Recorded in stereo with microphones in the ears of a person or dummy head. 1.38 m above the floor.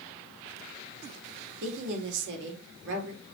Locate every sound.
1.6 s a woman speaking: 65° right (ahead or behind), 3.5 m